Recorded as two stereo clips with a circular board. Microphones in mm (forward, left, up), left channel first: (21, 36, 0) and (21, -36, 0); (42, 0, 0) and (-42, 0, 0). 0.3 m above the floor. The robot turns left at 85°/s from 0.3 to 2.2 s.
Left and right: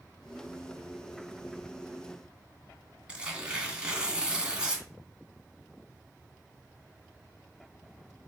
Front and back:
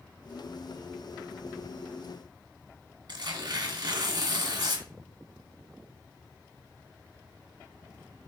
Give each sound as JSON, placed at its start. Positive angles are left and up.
{"t": 3.1, "sound": "tearing paper", "azimuth_deg": -165, "distance_m": 2.0}